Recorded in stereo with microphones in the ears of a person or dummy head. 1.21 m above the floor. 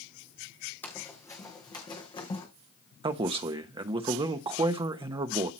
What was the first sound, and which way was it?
Running footsteps, 10° left (ahead or behind).